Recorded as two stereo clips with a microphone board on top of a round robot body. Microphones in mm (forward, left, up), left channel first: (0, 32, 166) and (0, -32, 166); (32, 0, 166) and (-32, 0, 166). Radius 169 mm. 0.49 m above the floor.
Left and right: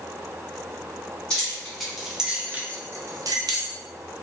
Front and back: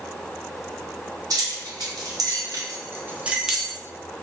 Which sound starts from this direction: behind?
Keys jangling, at 1.3 s.